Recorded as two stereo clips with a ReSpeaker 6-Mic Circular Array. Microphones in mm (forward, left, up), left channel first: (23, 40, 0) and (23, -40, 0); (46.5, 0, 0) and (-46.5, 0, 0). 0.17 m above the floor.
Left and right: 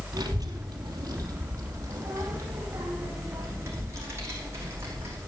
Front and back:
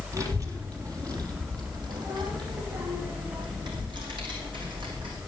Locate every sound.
0.1 s a child speaking: 125° right, 2.5 m; by 5.2 s 150° right, 6 m